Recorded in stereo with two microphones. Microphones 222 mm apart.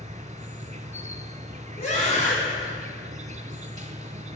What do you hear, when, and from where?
0.0 s an insect: 35° right (ahead or behind), 0.7 m
1.8 s a scream: 30° left (ahead or behind), 1.9 m